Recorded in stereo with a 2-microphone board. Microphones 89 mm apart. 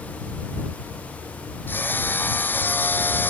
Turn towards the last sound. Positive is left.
turn(degrees=20)  # may be behind; listen again after turning